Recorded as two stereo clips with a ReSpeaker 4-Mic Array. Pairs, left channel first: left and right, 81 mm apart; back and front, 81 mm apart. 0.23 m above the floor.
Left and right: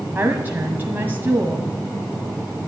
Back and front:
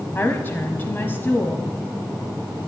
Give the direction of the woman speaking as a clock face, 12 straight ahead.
5 o'clock.